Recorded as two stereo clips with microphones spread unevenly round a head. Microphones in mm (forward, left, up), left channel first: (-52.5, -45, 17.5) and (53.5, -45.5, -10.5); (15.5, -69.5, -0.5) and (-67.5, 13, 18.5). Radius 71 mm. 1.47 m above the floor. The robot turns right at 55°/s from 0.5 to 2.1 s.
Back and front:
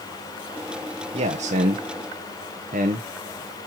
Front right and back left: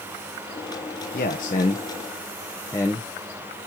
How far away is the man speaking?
About 1.0 m.